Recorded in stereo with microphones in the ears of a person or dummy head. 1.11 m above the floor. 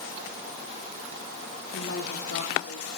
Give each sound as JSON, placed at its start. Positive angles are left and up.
{"t": 1.7, "sound": "a woman speaking", "side_deg": 55, "distance_m": 2.5}